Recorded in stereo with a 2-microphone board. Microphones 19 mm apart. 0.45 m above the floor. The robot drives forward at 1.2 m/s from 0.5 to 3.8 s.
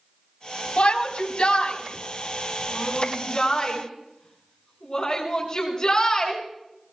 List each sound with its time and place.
0.8 s a shout: 70° left (ahead or behind), 3.5 m; by 6.4 s 40° left (ahead or behind), 5 m